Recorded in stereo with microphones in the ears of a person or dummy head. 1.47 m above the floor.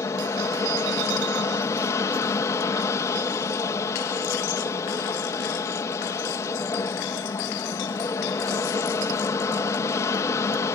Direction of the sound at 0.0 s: 15° left (ahead or behind).